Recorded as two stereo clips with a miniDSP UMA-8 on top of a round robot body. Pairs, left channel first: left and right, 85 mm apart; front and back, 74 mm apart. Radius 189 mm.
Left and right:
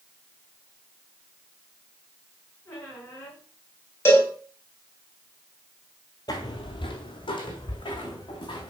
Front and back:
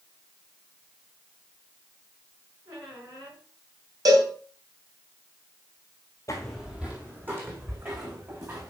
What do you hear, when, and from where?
2.6 s a squeak: 150° left, 5 m
4.0 s a cowbell: 150° left, 3 m
6.3 s footsteps: 50° left, 0.7 m; by 8.7 s 120° left, 3.5 m